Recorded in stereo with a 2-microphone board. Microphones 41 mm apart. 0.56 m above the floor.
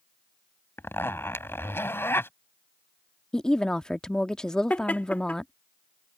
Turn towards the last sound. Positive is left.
turn(degrees=40)  # may be behind; listen again after turning